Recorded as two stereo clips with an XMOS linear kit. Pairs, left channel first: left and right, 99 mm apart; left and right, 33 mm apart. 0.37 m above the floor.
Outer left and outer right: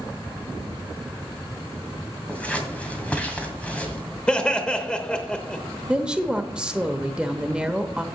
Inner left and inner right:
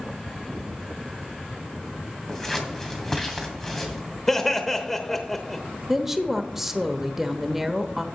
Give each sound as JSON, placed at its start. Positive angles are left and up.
{"t": 2.3, "sound": "scissors", "side_deg": 15, "distance_m": 2.0}
{"t": 4.3, "sound": "laughter", "side_deg": 10, "distance_m": 1.0}
{"t": 5.9, "sound": "a woman speaking", "side_deg": -10, "distance_m": 0.9}